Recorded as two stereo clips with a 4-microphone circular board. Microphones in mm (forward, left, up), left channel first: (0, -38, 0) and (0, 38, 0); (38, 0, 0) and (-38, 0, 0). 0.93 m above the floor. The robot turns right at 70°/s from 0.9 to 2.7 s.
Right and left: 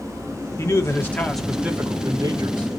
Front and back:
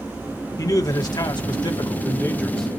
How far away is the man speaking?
About 1.9 m.